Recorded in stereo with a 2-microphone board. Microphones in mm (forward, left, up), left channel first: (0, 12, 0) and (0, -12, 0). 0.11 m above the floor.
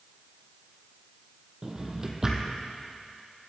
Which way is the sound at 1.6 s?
25° right (ahead or behind).